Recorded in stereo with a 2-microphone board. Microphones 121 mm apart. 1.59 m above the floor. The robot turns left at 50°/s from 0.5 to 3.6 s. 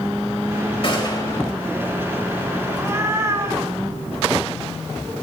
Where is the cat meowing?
15° right (ahead or behind), 1.7 m; by 5.1 s 30° right (ahead or behind), 1.7 m.